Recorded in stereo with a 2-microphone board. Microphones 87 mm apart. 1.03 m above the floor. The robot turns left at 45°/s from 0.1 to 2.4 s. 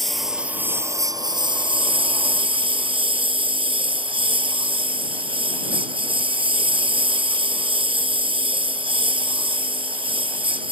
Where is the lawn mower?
Straight ahead; by 10.7 s 100° right.